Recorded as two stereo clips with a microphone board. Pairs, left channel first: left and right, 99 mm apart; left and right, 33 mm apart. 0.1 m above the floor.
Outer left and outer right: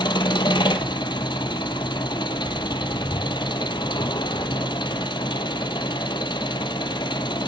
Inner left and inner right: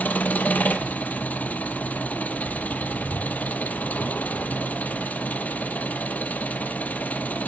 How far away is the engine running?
About 0.8 m.